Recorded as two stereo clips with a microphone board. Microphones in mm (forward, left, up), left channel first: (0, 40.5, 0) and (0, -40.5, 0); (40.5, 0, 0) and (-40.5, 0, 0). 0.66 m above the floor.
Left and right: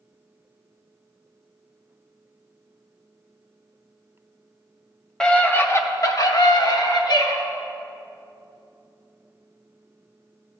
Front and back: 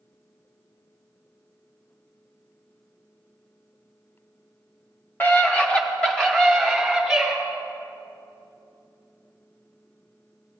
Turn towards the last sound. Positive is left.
turn(degrees=90)